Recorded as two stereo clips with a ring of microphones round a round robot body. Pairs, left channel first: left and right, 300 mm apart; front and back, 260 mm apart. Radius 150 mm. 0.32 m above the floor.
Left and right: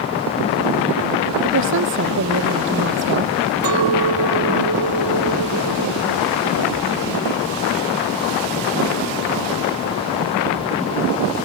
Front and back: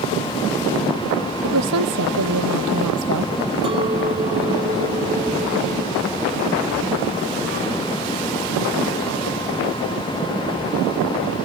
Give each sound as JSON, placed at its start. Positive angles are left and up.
{"t": 1.4, "sound": "a woman speaking", "azimuth_deg": -140}
{"t": 3.6, "sound": "a clink", "azimuth_deg": -110}